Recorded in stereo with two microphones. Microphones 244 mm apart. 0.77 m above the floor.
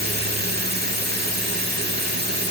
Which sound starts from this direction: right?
Running water, at 0.0 s.